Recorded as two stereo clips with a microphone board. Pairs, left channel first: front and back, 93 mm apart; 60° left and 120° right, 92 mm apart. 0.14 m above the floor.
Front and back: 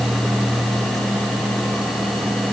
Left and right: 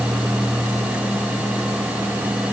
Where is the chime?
No chime in this recording.